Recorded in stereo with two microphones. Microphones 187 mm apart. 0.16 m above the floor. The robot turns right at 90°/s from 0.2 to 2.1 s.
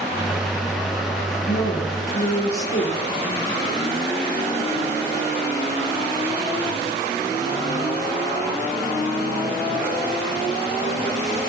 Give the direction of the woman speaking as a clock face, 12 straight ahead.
10 o'clock.